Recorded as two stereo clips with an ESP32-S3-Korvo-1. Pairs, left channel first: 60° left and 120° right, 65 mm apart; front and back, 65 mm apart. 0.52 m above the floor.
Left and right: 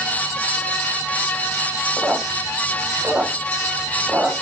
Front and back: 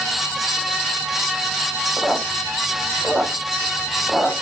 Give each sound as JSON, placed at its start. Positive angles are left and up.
{"t": 2.0, "sound": "a squeak", "azimuth_deg": -105, "distance_m": 0.6}